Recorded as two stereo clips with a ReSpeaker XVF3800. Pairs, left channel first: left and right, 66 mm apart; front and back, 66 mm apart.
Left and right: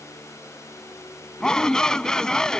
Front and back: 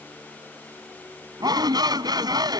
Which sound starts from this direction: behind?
A shout, at 1.4 s.